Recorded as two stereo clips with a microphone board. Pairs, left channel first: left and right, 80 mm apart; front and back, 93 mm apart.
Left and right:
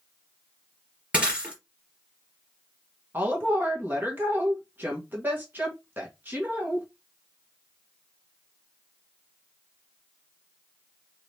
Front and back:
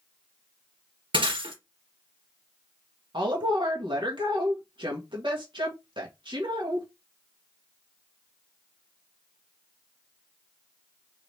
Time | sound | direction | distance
1.1 | breaking glass | 165° right | 3 m
3.1 | a woman speaking | 155° right | 1.4 m